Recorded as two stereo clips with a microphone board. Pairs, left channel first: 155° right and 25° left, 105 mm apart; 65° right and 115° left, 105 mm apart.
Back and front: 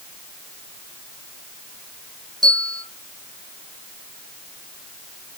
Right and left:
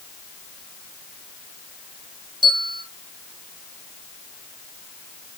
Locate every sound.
2.4 s a bell: 70° left, 3 m